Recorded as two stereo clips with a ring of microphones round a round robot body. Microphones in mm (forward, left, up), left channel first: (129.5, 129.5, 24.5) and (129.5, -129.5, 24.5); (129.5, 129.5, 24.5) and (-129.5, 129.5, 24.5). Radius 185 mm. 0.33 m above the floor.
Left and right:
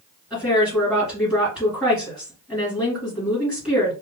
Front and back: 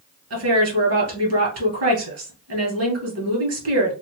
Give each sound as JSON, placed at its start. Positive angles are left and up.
{"t": 0.3, "sound": "a woman speaking", "azimuth_deg": 180, "distance_m": 2.5}